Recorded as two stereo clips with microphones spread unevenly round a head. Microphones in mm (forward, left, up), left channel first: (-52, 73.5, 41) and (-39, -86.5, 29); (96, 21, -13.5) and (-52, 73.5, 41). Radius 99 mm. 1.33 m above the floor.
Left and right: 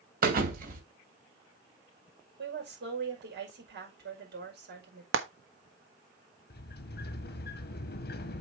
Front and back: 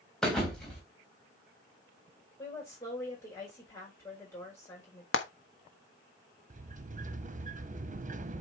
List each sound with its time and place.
0.2 s a thud: 115° right, 2.5 m
2.4 s a woman speaking: 95° right, 5.5 m
5.1 s frying: 55° right, 1.2 m
6.5 s a sliding door: 115° left, 1.0 m